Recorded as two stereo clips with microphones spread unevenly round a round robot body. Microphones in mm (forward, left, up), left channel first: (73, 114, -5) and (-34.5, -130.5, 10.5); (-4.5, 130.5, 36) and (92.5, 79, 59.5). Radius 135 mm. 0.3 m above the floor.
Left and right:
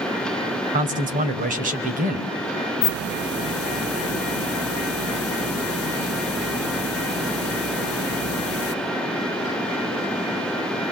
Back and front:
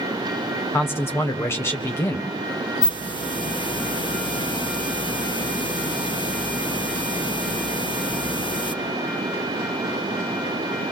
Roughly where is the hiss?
Left.